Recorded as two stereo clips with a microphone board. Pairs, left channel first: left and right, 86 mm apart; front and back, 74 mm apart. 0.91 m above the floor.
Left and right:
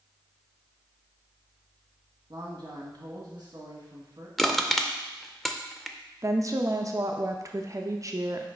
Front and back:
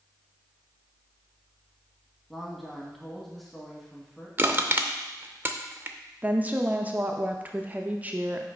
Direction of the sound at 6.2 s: 120° right.